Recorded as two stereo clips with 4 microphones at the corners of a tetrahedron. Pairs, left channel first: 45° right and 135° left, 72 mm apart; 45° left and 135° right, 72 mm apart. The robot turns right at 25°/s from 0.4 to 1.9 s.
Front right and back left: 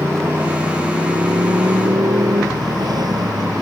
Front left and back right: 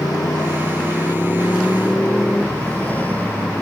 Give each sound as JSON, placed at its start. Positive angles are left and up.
{"t": 0.0, "sound": "a motorcycle", "azimuth_deg": 75}